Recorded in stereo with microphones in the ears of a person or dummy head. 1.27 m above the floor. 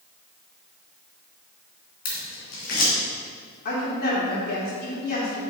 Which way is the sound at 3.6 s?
55° left (ahead or behind).